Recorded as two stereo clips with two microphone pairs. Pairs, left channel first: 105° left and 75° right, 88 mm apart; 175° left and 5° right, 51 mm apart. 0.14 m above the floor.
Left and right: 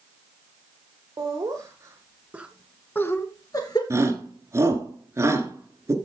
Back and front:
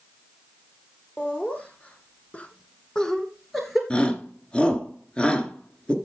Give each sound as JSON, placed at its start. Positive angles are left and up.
{"t": 1.2, "sound": "laughter", "azimuth_deg": -125, "distance_m": 3.0}
{"t": 3.9, "sound": "a shout", "azimuth_deg": -120, "distance_m": 1.8}